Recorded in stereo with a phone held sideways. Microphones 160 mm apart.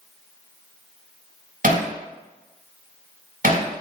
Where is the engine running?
No engine running in this recording.